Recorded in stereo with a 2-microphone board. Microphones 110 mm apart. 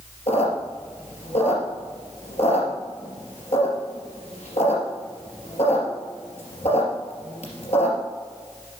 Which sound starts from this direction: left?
A squeak, at 0.3 s.